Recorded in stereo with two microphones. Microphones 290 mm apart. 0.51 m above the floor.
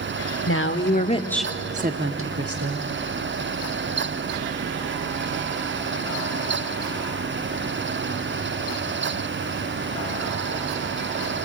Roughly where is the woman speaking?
Left.